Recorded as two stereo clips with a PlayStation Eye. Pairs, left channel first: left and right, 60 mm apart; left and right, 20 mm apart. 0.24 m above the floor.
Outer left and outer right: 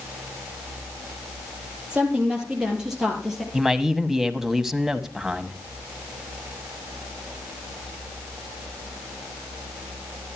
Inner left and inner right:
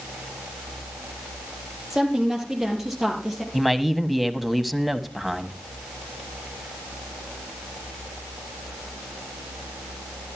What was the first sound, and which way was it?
A woman speaking, 20° right (ahead or behind).